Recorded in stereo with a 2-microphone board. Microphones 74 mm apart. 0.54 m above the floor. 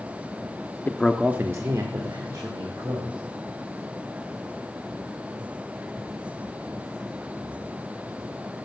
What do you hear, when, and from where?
0.9 s a man speaking: 30° left (ahead or behind), 0.7 m; by 3.2 s 70° right (ahead or behind), 2.5 m